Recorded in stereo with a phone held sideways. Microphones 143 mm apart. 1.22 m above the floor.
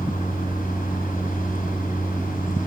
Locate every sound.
0.0 s a machine running: 90° left, 7.5 m